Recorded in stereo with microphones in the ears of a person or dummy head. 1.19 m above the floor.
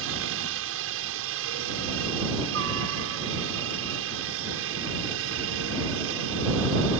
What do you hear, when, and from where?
0.0 s a helicopter: 70° right (ahead or behind)